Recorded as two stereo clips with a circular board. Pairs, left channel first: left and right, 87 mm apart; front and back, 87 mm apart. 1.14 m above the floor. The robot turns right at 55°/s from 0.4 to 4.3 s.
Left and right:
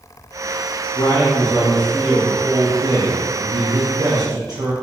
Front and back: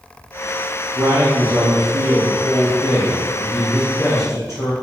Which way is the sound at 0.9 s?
125° left.